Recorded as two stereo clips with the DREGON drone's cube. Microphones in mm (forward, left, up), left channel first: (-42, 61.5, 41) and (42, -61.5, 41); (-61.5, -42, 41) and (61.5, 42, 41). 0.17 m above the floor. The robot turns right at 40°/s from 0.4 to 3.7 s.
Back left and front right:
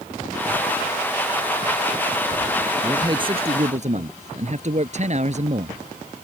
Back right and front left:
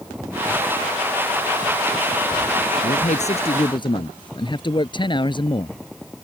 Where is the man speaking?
125° right; by 5.8 s 90° right.